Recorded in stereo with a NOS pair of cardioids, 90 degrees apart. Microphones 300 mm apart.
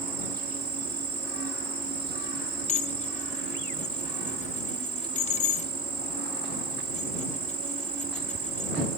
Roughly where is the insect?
Ahead right.